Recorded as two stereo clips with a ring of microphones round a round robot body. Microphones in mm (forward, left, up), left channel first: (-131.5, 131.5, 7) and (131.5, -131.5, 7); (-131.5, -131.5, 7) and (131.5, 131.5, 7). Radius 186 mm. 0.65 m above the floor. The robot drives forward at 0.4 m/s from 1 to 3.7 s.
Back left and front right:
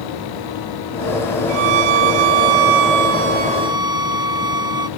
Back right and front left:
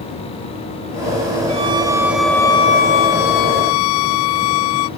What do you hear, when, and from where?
1.5 s a violin: 30° right, 0.8 m; by 4.9 s 125° right, 0.5 m